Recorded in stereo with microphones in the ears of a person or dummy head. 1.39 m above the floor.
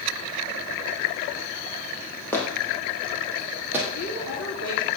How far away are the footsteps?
About 3.5 m.